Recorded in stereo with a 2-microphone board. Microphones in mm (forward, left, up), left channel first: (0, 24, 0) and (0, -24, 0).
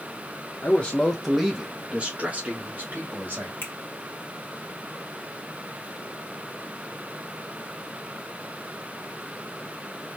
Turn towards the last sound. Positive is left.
turn(degrees=50)  # may be behind; listen again after turning